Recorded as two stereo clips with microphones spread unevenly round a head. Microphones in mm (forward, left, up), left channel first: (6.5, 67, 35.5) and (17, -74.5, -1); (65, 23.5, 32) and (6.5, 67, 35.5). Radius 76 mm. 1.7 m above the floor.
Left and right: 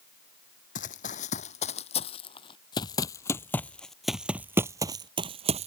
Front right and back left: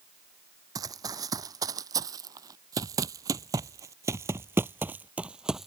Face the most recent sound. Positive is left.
turn(degrees=-135)